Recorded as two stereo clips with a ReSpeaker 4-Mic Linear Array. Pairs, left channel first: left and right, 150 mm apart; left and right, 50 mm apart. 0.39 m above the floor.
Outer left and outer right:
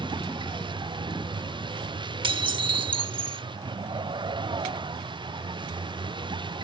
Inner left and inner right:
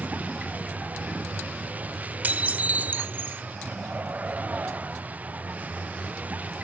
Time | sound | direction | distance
0.0 | a vehicle | 30° right (ahead or behind) | ?
2.2 | dishes clattering | 35° right (ahead or behind) | ?